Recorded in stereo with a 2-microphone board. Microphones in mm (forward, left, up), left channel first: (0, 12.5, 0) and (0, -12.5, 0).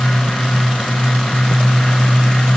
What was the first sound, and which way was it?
Only background noise.